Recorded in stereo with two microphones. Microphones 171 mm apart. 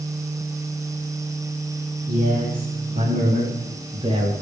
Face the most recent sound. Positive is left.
turn(degrees=-30)  # may be behind; listen again after turning